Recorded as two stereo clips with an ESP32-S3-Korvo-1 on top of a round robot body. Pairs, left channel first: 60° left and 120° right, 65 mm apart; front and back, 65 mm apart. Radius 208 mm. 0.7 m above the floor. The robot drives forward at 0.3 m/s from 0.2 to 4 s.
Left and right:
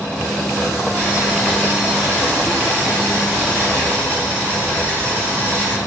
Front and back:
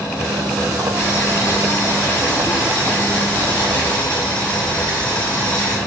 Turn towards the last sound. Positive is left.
turn(degrees=-65)